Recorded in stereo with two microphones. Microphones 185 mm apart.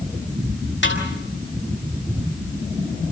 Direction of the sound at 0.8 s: 75° left (ahead or behind).